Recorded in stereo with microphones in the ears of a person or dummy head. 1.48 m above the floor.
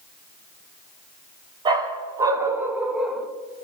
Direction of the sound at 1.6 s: 20° right (ahead or behind).